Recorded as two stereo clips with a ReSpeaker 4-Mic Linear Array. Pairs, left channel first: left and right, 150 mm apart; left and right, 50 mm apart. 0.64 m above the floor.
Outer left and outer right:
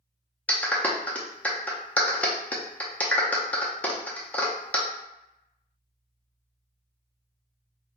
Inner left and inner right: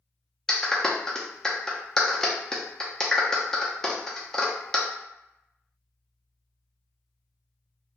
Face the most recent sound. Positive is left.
turn(degrees=10)  # may be behind; listen again after turning